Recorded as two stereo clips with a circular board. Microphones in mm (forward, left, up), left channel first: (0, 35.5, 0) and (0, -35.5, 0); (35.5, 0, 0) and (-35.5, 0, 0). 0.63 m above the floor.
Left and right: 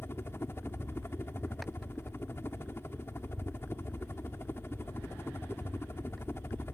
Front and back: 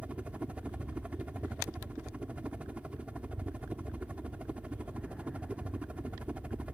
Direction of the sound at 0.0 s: 120° left.